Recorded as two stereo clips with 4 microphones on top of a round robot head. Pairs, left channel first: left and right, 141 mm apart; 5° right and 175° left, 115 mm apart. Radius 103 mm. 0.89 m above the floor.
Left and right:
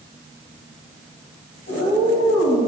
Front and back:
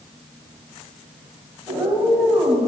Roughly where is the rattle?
No rattle in this recording.